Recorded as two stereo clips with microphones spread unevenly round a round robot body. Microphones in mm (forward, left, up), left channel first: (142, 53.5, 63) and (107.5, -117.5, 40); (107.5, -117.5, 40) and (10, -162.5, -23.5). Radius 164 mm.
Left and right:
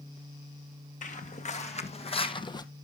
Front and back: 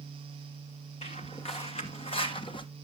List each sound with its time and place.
1.0 s footsteps: 35° left, 2 m; by 2.6 s 10° left, 1.0 m